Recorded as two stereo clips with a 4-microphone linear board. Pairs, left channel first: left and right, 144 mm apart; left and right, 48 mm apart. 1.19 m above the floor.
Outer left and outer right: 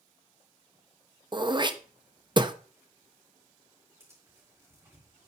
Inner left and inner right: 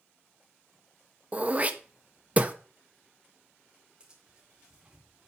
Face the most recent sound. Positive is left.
turn(degrees=-20)  # may be behind; listen again after turning